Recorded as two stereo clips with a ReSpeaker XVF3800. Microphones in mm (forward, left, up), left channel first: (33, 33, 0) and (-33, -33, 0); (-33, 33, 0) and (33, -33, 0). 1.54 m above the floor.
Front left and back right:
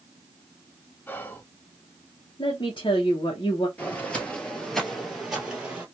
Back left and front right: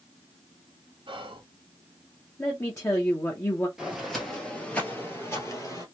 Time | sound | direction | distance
1.1 | whispering | 25° right | 0.9 m
2.4 | a woman speaking | 80° left | 0.9 m
3.8 | footsteps | 25° left | 1.6 m